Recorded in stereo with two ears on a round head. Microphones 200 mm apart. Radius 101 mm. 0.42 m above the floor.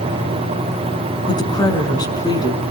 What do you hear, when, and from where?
1.3 s a woman speaking: 20° left (ahead or behind), 4 m